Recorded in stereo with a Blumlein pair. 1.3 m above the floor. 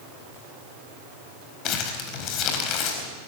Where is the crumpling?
35° left, 4 m.